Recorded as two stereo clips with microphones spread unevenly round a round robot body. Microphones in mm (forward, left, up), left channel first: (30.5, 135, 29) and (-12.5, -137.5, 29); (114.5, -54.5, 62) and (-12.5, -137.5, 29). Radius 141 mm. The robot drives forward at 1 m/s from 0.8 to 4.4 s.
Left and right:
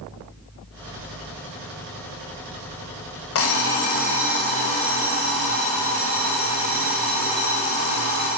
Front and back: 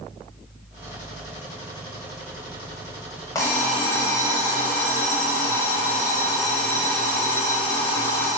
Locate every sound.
3.4 s an alarm clock: 110° left, 1.2 m; by 8.3 s 145° left, 1.8 m